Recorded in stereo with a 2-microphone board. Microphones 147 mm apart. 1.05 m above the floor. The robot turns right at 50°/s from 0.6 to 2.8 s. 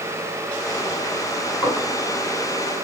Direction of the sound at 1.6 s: 10° left (ahead or behind).